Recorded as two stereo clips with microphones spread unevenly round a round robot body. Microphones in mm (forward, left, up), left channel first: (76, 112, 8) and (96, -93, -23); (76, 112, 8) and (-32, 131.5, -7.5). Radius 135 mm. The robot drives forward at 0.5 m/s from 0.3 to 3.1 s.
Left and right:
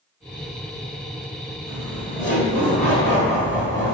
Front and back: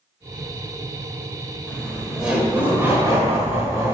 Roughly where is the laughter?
Left.